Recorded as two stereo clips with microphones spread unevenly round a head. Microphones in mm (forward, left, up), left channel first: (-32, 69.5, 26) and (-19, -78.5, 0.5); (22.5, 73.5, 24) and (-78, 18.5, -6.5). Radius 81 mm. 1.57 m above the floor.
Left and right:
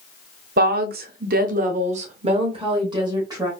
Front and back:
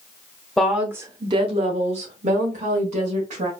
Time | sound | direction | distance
0.6 | a woman speaking | 65° right | 0.7 m